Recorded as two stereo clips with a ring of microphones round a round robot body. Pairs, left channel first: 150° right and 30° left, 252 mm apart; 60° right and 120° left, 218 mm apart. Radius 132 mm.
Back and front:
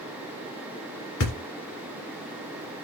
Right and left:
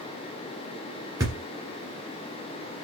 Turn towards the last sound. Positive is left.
turn(degrees=-165)